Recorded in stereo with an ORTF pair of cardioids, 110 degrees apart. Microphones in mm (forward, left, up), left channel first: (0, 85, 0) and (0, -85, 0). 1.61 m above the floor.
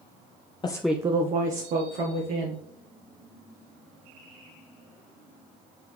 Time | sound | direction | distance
0.6 | a woman speaking | 30° left | 0.7 m